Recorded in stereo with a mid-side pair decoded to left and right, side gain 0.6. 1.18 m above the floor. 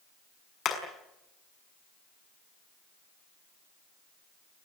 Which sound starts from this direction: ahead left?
Hammering, at 0.7 s.